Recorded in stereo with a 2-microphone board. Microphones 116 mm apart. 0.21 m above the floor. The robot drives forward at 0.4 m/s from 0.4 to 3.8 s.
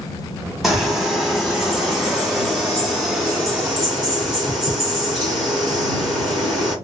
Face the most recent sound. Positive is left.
turn(degrees=0)  # may be behind; listen again after turning